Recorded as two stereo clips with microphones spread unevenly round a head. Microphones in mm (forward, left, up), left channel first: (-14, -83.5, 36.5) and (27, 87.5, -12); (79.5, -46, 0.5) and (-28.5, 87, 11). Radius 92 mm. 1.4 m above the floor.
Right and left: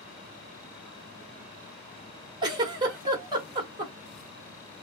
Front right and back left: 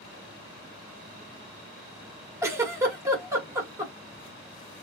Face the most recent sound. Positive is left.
turn(degrees=145)